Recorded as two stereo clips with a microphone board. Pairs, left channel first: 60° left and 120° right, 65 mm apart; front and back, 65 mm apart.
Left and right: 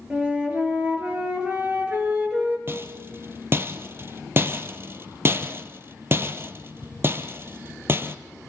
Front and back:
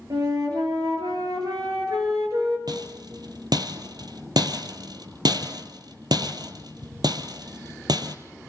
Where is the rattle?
175° right, 1.3 m.